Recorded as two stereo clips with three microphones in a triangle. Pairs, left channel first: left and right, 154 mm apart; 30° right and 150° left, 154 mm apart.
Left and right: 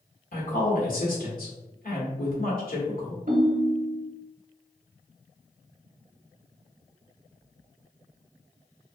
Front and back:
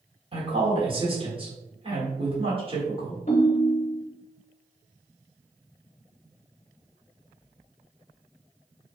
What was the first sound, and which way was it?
A woman speaking, 100° left.